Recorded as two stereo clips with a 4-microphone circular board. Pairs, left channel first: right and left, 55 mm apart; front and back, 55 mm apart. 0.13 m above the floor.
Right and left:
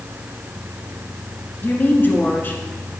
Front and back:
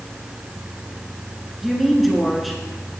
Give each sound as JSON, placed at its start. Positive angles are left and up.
{"t": 1.6, "sound": "a woman speaking", "azimuth_deg": -95, "distance_m": 1.3}